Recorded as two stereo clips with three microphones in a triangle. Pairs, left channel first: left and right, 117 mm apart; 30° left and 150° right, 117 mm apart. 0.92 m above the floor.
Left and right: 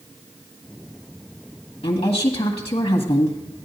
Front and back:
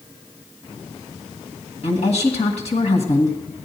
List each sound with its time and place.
1.8 s a woman speaking: 50° left, 1.7 m